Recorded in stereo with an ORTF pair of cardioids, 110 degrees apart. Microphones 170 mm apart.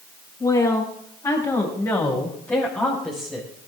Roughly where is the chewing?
No chewing in this recording.